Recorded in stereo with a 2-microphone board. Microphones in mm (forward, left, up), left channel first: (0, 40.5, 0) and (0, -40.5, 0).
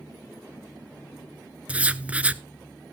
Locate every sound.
1.7 s writing: 15° right (ahead or behind), 0.6 m